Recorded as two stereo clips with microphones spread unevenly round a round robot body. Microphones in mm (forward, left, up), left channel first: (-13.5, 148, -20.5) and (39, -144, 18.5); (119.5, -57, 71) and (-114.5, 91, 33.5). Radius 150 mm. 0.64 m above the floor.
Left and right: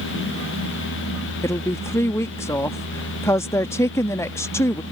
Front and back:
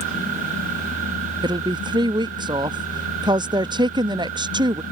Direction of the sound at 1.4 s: 145° left.